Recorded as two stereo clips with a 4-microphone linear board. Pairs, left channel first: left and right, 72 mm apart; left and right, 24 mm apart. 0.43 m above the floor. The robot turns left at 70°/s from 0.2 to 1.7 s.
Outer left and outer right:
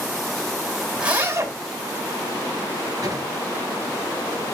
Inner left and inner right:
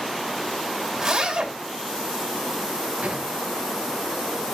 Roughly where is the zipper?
Ahead.